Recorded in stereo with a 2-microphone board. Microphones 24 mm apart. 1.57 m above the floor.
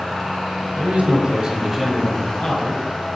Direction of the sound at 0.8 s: 65° right (ahead or behind).